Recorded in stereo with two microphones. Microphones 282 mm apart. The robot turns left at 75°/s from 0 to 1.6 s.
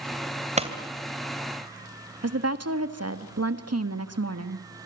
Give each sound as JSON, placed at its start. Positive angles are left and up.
{"t": 0.6, "sound": "a pop", "side_deg": -25, "distance_m": 2.5}
{"t": 2.2, "sound": "a woman speaking", "side_deg": -60, "distance_m": 1.6}